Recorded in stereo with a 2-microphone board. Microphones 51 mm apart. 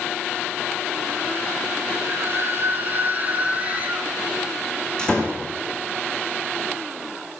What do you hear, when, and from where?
2.0 s a scream: 55° right (ahead or behind), 3.5 m; by 4.1 s 25° right (ahead or behind), 5 m
5.0 s a door slam: 20° left (ahead or behind), 6 m